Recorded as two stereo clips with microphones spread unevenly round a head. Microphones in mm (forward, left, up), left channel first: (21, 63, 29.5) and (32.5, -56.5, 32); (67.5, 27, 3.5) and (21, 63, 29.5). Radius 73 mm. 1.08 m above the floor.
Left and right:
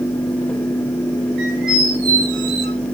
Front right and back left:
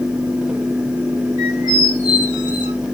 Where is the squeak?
100° right, 2 m.